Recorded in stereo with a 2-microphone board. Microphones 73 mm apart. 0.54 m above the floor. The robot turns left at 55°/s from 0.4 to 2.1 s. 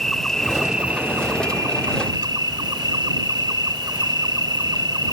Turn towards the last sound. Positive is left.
turn(degrees=-85)